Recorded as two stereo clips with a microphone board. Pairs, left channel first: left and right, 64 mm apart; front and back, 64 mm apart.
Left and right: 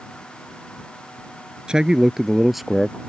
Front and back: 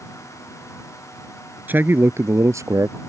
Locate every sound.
1.7 s a man speaking: 155° right; by 3.0 s straight behind